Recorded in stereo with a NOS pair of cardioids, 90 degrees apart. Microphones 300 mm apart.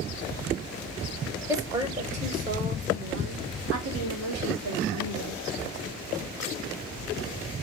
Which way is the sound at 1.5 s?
10° right.